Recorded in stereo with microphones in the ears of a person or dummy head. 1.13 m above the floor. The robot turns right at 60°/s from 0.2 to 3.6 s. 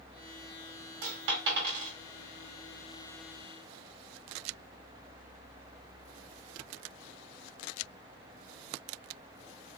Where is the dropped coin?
70° right (ahead or behind), 1.7 m; by 1.9 s 45° right (ahead or behind), 1.7 m.